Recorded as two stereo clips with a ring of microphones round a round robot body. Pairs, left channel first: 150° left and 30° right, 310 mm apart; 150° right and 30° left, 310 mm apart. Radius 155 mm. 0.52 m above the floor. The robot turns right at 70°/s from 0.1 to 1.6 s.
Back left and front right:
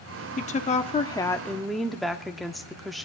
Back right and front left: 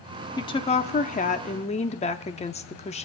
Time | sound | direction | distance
0.4 | a woman speaking | 150° left | 0.7 m